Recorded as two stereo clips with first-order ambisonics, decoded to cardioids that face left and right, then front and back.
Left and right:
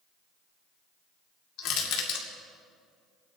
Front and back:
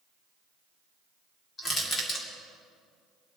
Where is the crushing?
65° left, 2.5 m.